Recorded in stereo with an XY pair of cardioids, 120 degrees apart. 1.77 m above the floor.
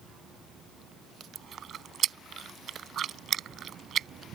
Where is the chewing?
45° right.